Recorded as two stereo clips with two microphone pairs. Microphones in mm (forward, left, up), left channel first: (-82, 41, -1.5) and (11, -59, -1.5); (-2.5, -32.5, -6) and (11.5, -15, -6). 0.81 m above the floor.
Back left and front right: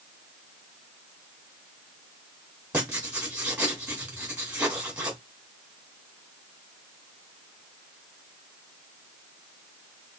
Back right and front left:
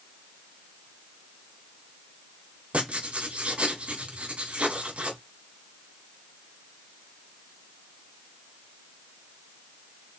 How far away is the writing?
About 3 m.